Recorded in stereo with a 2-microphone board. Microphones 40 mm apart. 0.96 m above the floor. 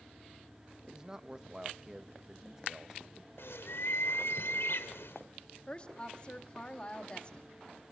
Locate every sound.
0.9 s a man speaking: 15° right (ahead or behind), 1.0 m
3.4 s a bird: 80° left, 1.5 m
5.7 s a woman speaking: 30° left (ahead or behind), 1.9 m